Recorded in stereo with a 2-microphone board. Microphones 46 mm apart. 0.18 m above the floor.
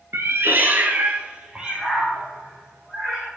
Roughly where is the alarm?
I don't hear an alarm.